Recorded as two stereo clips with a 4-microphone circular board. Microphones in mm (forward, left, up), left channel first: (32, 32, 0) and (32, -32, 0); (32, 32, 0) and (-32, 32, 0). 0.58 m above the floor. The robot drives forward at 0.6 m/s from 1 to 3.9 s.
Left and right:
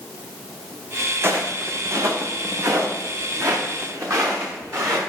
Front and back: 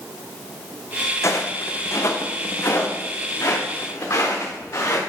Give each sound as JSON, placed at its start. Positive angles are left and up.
{"t": 1.2, "sound": "footsteps", "azimuth_deg": -40, "distance_m": 1.8}